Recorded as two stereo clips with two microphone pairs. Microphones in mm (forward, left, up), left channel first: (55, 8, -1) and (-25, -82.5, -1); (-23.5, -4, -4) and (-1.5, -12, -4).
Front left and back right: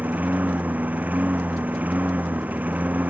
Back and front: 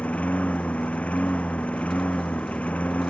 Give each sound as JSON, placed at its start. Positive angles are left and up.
{"t": 0.0, "sound": "a lawn mower", "azimuth_deg": 150}